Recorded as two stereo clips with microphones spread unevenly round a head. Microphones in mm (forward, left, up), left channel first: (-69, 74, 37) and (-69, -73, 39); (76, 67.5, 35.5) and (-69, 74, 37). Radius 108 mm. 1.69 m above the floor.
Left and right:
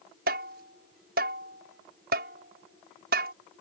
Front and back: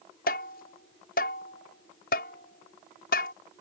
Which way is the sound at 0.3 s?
50° right.